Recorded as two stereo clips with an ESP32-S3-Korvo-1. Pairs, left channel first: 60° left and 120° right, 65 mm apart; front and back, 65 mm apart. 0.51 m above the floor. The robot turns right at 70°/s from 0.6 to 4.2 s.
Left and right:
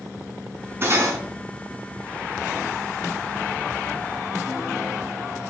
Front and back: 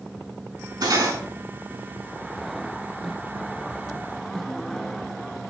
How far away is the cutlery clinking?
About 3 m.